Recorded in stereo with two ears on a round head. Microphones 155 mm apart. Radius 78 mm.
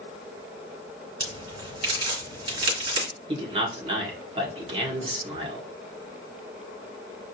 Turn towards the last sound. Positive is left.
turn(degrees=-35)  # may be behind; listen again after turning